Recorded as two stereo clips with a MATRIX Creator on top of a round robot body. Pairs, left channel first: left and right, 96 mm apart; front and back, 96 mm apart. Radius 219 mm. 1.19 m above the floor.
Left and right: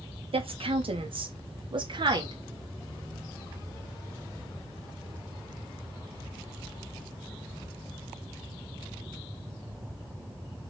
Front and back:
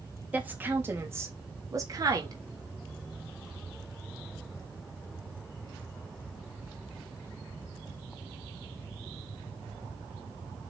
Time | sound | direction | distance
0.3 | a woman speaking | 105° right | 3 m